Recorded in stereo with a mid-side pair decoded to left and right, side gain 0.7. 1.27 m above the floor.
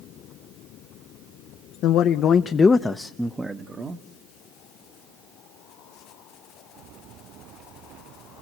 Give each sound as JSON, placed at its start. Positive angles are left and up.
{"t": 1.8, "sound": "a man speaking", "azimuth_deg": 55, "distance_m": 1.0}